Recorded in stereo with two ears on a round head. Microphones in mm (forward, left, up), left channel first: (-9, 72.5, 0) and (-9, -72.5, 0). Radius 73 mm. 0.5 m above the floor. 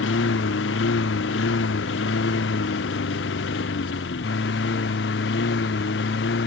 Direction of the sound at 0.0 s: 85° left.